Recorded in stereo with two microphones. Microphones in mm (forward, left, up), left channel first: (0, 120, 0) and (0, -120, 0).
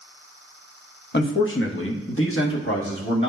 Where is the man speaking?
50° left (ahead or behind), 0.9 m; by 3.3 s 55° left (ahead or behind), 1.8 m.